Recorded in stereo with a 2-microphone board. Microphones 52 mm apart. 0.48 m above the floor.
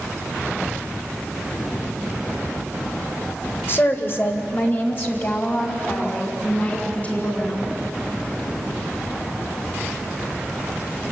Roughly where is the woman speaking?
Left.